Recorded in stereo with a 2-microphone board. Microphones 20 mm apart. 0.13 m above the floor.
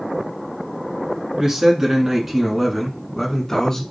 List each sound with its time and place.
1.4 s a man speaking: 35° right (ahead or behind), 1.3 m; by 3.8 s 25° left (ahead or behind), 1.2 m